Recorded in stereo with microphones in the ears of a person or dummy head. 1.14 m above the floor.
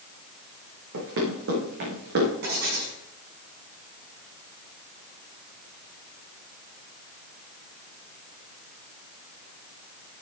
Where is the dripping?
No dripping in this recording.